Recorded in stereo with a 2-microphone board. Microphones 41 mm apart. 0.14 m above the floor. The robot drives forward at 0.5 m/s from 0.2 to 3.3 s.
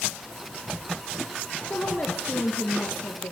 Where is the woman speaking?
50° left (ahead or behind), 3 m; by 3.3 s 55° left (ahead or behind), 3 m.